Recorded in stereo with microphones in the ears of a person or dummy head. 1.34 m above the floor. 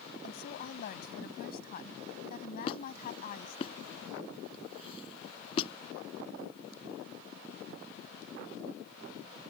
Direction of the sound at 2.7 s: 35° left (ahead or behind).